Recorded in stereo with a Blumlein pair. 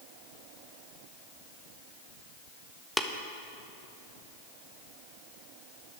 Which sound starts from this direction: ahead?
Tapping, at 3.0 s.